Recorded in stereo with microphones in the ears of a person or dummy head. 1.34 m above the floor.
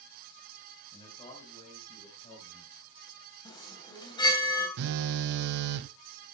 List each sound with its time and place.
0.9 s a man speaking: 20° left (ahead or behind), 4.5 m; by 3.4 s 45° left (ahead or behind), 5 m
3.5 s a chime: 20° left (ahead or behind), 3.5 m
4.8 s a phone buzzing: 65° right (ahead or behind), 0.6 m